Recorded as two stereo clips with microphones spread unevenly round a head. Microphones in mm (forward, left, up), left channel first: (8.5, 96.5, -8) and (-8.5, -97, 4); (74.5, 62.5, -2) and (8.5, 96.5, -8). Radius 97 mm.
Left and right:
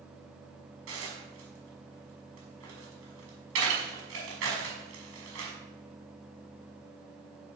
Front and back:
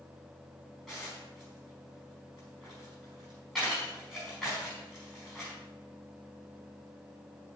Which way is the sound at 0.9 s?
120° right.